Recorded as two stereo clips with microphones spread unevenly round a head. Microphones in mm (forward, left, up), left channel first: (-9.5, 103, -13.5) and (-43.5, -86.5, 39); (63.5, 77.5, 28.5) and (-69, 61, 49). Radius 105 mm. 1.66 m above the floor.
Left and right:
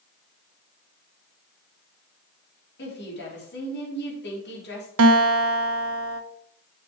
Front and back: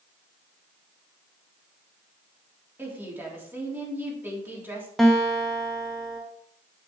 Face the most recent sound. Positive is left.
turn(degrees=-85)